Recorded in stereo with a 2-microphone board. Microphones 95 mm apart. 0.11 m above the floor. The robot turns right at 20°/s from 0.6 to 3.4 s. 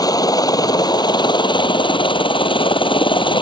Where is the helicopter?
50° left; by 3.4 s 105° left.